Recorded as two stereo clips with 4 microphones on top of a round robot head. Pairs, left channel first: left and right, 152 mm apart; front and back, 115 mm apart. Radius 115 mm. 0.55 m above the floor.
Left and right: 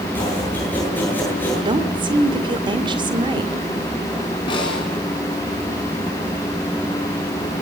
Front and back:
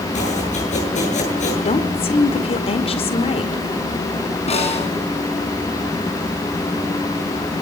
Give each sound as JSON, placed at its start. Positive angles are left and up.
{"t": 0.1, "sound": "chopping", "azimuth_deg": 10, "distance_m": 9.0}
{"t": 1.6, "sound": "a woman speaking", "azimuth_deg": -30, "distance_m": 2.0}
{"t": 4.5, "sound": "a snare drum", "azimuth_deg": 25, "distance_m": 6.0}